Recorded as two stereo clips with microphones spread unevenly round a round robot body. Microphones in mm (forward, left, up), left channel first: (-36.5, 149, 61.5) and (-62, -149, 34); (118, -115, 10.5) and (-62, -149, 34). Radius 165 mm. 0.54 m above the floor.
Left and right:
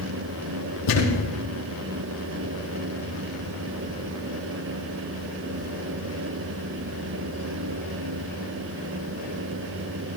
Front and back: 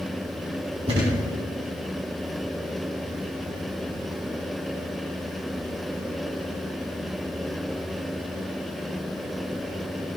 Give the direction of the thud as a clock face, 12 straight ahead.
8 o'clock.